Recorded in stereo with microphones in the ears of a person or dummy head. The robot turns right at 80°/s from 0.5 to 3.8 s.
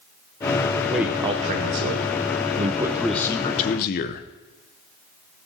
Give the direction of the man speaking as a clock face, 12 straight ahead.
6 o'clock.